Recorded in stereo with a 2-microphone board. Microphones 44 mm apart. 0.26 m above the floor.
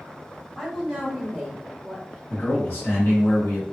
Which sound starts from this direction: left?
A man speaking, at 2.3 s.